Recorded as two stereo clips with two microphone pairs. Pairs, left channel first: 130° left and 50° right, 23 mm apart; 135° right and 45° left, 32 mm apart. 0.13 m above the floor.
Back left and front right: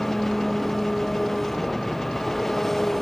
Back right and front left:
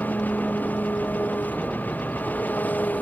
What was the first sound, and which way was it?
An engine running, 155° right.